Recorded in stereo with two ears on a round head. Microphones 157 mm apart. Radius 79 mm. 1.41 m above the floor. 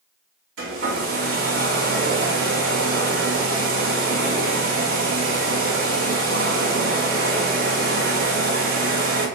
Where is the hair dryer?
85° right, 2.5 m.